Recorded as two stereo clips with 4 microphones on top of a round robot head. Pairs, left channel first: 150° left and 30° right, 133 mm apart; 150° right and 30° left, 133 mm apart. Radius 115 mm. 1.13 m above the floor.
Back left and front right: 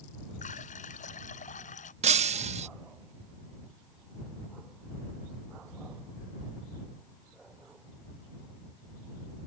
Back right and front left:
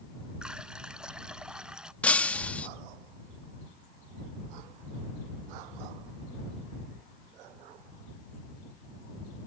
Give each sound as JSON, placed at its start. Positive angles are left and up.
{"t": 0.4, "sound": "a running tap", "azimuth_deg": 115}
{"t": 2.0, "sound": "breaking glass", "azimuth_deg": -70}